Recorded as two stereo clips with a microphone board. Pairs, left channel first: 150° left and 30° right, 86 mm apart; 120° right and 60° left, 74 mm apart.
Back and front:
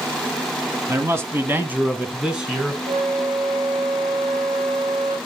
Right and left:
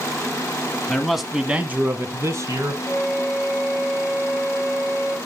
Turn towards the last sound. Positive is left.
turn(degrees=-15)